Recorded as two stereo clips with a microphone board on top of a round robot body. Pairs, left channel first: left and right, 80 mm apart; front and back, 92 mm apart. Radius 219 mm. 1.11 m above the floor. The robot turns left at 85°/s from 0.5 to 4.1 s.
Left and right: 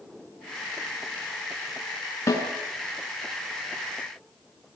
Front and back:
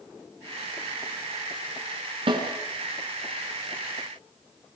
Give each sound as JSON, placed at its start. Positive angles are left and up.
{"t": 2.3, "sound": "a snare drum", "azimuth_deg": 150, "distance_m": 4.5}